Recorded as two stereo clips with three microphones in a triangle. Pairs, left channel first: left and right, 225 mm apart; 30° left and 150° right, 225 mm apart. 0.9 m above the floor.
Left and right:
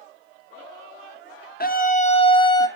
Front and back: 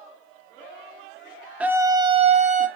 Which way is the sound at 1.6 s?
130° left.